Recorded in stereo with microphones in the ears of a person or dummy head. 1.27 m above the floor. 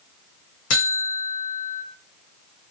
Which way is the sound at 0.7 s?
80° left.